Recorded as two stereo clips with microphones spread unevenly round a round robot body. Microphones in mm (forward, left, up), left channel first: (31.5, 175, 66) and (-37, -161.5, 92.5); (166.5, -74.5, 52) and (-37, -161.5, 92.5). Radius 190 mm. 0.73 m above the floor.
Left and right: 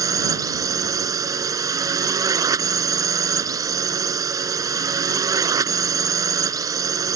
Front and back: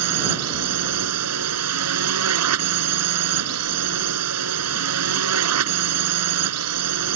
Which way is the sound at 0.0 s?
Straight behind.